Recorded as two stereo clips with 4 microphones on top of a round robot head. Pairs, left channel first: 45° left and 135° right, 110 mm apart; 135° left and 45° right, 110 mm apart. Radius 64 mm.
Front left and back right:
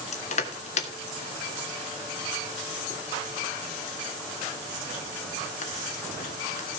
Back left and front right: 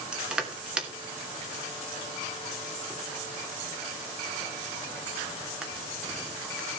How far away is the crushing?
About 2.5 m.